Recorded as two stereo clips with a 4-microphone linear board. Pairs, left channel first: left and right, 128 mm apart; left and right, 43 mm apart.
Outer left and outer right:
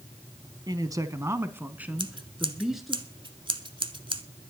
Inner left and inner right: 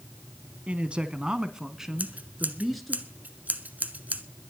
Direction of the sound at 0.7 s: 30° right (ahead or behind).